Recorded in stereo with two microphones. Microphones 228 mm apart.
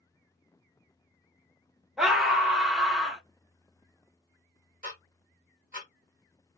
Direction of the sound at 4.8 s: 35° right (ahead or behind).